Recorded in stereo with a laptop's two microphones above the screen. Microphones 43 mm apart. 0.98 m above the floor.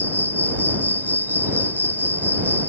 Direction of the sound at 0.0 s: 45° left (ahead or behind).